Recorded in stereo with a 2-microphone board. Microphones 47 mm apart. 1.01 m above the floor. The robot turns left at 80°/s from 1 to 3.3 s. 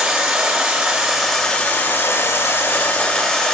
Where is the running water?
160° right, 1.2 m; by 3.5 s 15° left, 1.2 m.